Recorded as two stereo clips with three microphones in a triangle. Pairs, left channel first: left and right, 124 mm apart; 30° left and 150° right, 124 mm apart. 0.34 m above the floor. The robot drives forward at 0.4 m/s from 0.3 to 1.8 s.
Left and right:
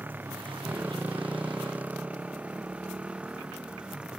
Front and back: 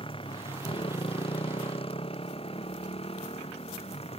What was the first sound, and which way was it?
A motorcycle, 15° right.